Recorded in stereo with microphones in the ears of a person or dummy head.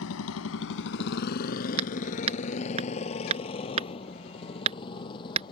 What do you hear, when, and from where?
0.0 s a motorcycle: 75° left (ahead or behind); by 5.5 s 25° left (ahead or behind)
1.8 s hammering: 35° right (ahead or behind)